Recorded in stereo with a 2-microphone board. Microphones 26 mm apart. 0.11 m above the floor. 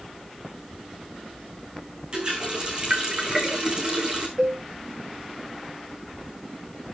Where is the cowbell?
30° right (ahead or behind), 7 m.